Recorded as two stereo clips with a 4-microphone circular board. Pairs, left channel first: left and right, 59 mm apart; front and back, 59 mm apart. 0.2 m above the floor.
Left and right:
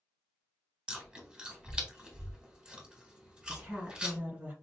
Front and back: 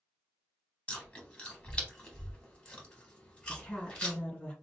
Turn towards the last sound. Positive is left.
turn(degrees=-45)